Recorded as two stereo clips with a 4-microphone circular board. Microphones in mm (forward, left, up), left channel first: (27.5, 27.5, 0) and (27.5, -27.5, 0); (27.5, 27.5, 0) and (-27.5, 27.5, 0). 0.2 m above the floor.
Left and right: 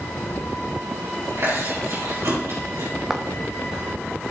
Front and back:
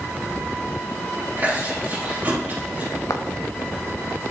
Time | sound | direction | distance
1.4 | chewing | 120° right | 5 m
3.1 | footsteps | 10° right | 1.2 m